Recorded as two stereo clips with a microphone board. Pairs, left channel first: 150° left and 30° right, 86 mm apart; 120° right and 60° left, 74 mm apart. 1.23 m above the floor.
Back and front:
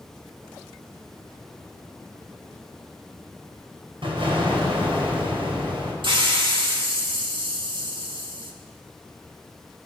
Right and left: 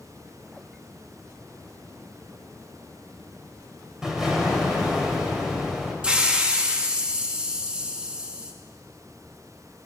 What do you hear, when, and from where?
4.0 s an explosion: 25° right, 5 m
6.0 s a hiss: 15° right, 2 m